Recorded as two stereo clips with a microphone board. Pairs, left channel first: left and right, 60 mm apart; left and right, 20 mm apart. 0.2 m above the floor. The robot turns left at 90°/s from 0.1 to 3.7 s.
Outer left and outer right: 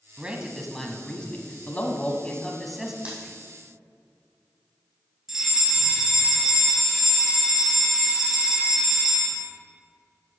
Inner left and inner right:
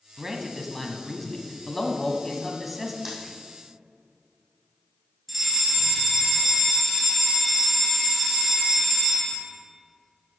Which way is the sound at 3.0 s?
15° right (ahead or behind).